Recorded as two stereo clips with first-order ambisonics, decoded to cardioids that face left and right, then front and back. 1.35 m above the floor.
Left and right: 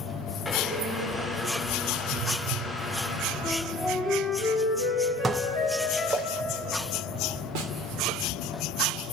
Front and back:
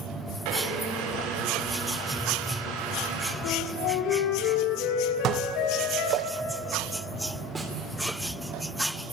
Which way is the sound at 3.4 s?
5° right.